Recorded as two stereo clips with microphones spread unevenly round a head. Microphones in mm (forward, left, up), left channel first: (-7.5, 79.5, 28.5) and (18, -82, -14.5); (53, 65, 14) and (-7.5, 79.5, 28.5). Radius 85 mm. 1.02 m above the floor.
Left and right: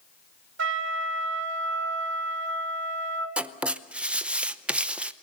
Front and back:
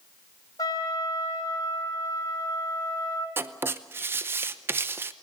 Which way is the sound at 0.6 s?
70° right.